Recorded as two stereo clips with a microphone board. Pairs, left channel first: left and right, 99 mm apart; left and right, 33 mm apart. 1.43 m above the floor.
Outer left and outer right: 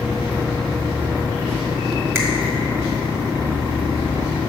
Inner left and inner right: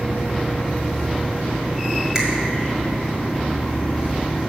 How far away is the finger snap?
About 1.5 m.